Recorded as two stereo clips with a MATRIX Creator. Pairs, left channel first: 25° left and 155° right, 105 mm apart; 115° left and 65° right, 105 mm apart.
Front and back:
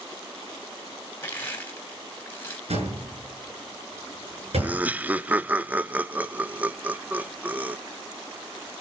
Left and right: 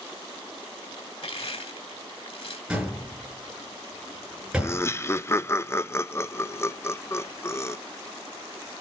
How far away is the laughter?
About 0.5 m.